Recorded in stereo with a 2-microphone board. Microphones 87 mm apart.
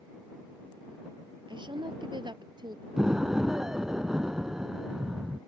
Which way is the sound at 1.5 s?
65° right (ahead or behind).